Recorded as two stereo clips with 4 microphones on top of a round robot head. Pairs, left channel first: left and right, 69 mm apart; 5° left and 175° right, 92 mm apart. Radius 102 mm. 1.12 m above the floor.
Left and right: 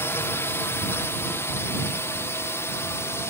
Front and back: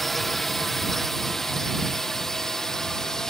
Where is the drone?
90° left; by 3.3 s 85° left.